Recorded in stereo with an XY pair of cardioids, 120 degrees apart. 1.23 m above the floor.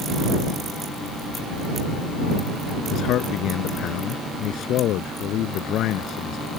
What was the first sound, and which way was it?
A man speaking, 70° left.